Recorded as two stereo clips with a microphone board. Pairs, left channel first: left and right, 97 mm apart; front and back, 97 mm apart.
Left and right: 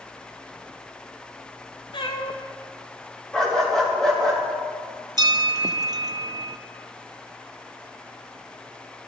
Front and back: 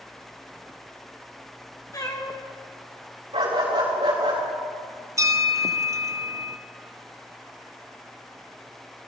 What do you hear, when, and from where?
1.9 s a cat meowing: 55° left, 1.8 m
3.3 s a dog barking: 175° left, 5 m
5.2 s a bell: 130° right, 0.8 m